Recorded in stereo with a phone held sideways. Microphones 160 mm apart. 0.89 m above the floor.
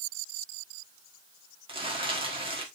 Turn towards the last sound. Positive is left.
turn(degrees=-35)  # may be behind; listen again after turning